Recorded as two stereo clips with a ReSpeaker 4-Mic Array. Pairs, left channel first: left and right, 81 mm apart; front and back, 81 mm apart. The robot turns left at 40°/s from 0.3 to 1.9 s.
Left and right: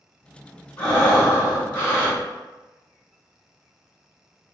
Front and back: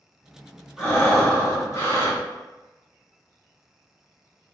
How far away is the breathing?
About 2.0 m.